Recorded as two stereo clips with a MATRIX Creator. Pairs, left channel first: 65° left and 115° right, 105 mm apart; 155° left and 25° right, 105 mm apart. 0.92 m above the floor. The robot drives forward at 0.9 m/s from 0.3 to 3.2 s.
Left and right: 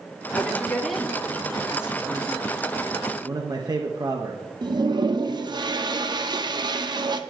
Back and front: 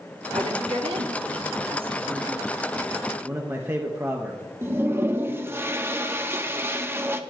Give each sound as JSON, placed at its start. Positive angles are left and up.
{"t": 0.3, "sound": "a woman speaking", "azimuth_deg": -15, "distance_m": 2.5}
{"t": 3.2, "sound": "a man speaking", "azimuth_deg": -80, "distance_m": 1.1}
{"t": 4.6, "sound": "a toilet flushing", "azimuth_deg": -85, "distance_m": 0.8}